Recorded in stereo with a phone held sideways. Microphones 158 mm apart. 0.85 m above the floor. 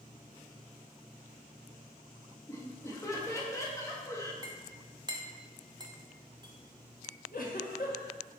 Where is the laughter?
20° left (ahead or behind), 1.2 m.